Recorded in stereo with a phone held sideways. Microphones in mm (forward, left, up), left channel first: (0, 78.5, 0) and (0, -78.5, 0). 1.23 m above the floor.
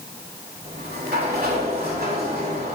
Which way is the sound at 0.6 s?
80° right.